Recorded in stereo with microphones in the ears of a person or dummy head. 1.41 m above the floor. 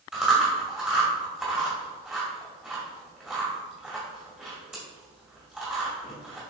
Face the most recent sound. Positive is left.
turn(degrees=-5)  # may be behind; listen again after turning